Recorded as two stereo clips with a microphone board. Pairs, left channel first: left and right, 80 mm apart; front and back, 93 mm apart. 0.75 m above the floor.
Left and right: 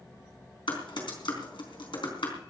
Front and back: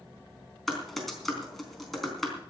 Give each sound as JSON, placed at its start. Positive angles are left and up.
{"t": 0.7, "sound": "typing on a keyboard", "azimuth_deg": 90, "distance_m": 4.0}